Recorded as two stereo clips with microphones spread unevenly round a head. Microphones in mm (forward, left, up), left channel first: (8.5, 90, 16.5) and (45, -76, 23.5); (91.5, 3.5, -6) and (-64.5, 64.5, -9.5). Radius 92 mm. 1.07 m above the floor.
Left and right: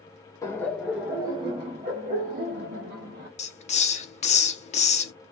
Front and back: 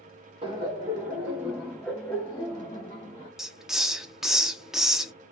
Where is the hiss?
75° left, 0.7 m.